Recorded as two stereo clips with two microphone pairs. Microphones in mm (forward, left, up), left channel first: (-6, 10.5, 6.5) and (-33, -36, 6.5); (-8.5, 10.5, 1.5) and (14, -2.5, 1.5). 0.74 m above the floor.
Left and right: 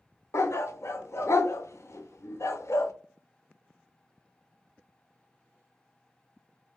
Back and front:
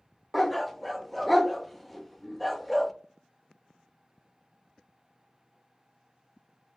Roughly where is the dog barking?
Ahead left.